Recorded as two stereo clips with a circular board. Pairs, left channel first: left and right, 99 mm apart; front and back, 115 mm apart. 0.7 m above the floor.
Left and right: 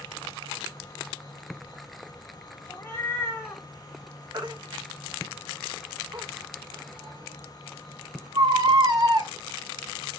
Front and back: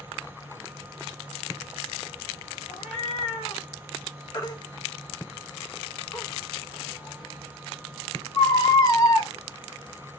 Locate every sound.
2.7 s a cat meowing: 25° left, 0.9 m
4.3 s a baby crying: 50° right, 0.7 m